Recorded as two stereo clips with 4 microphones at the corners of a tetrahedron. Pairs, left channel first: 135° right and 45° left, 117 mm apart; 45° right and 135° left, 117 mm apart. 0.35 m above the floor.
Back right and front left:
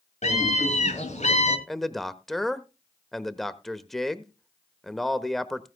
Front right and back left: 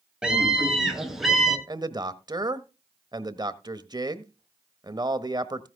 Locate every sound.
0.2 s a scream: 140° right, 5 m; by 1.6 s 135° right, 3.5 m
1.7 s a man speaking: 140° left, 1.0 m